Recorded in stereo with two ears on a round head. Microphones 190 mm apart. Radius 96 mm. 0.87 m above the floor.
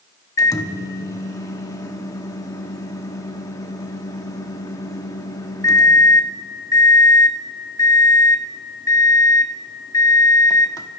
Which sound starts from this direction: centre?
A microwave, at 0.4 s.